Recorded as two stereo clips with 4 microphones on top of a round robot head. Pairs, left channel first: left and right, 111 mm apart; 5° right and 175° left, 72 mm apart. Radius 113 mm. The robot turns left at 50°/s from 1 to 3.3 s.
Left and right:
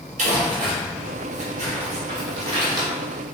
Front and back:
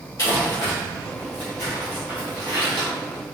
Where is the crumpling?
55° right, 1.6 m; by 2.9 s 145° right, 1.6 m.